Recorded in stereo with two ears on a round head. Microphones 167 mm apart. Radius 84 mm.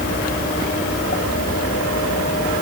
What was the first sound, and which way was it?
Only background noise.